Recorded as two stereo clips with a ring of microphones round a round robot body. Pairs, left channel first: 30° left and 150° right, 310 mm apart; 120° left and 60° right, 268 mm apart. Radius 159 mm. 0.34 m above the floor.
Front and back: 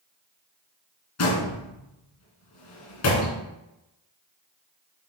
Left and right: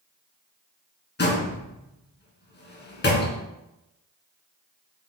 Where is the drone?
I don't hear a drone.